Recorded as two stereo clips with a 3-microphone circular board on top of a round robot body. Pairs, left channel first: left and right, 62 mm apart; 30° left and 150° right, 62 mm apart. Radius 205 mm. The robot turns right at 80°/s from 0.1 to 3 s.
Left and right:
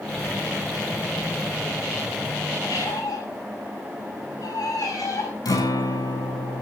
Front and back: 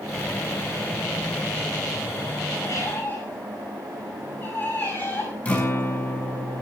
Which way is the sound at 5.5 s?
100° left.